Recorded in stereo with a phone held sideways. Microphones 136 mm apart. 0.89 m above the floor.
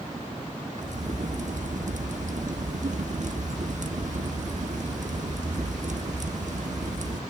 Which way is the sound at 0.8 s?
60° right (ahead or behind).